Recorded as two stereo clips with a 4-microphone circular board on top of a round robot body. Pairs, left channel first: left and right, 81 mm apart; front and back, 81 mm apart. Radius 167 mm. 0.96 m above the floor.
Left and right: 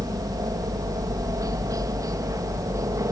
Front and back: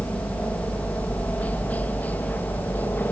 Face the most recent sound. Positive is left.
turn(degrees=-60)